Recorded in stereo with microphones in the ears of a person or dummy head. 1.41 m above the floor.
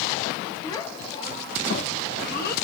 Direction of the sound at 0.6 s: 25° left (ahead or behind).